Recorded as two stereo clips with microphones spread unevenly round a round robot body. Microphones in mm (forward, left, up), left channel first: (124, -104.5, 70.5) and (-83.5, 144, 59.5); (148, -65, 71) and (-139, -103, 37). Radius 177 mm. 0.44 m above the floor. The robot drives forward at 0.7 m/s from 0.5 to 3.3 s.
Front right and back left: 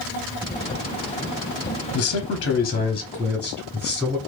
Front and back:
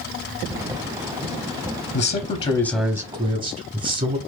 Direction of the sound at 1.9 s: 35° right.